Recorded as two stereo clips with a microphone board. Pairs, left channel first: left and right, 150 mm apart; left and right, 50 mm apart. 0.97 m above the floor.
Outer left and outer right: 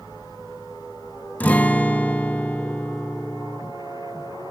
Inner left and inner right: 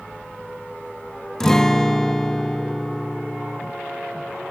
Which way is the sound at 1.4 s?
10° left (ahead or behind).